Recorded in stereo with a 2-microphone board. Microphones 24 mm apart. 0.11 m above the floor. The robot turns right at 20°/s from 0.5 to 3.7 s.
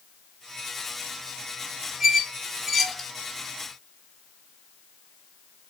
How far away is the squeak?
About 0.7 m.